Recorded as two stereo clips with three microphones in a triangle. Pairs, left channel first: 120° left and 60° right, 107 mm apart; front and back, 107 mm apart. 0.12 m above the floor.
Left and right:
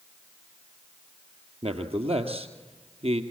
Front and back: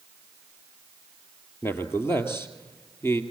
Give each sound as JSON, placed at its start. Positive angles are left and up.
{"t": 1.6, "sound": "a man speaking", "azimuth_deg": -65, "distance_m": 2.5}